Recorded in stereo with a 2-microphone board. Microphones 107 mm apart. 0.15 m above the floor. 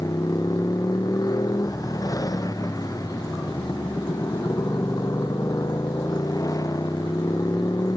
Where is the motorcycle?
35° left (ahead or behind).